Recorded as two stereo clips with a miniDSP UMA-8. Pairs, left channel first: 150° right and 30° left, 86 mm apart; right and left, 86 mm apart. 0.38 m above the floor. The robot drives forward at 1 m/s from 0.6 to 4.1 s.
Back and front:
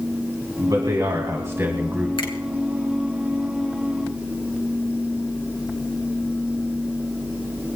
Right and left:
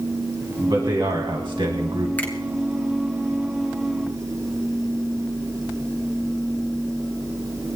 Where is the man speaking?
60° left, 2.5 m; by 2.1 s 100° left, 2 m.